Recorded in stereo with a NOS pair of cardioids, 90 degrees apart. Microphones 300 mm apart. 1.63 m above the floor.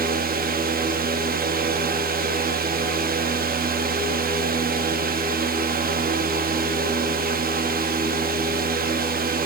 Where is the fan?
30° right, 0.7 m.